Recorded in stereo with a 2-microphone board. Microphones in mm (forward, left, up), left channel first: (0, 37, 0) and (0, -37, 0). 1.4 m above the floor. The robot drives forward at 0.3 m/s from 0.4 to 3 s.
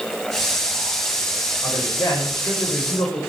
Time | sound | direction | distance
1.6 | a man speaking | 50° left (ahead or behind) | 6 m